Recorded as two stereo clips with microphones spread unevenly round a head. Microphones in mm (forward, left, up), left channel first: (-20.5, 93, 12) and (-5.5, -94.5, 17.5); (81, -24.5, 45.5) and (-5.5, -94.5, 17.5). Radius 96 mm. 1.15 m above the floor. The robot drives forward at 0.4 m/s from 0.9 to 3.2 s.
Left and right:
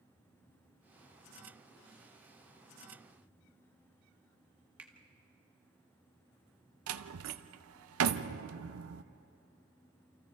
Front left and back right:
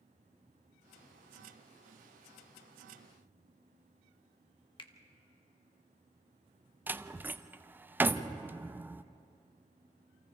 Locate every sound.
4.8 s a finger snap: 5° right, 1.2 m
6.9 s a door slam: 65° right, 0.6 m